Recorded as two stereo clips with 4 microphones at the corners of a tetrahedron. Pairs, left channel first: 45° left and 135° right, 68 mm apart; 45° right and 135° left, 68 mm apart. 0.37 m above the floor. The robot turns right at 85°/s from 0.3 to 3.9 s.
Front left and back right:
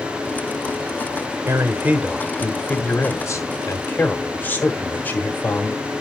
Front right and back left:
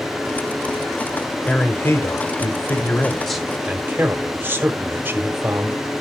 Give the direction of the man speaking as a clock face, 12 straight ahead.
4 o'clock.